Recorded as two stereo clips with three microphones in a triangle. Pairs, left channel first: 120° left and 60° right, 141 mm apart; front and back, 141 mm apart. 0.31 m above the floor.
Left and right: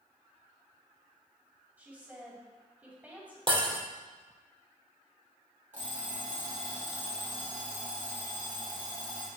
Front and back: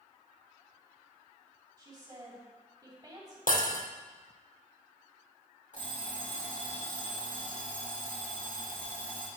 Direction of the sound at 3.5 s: 5° right.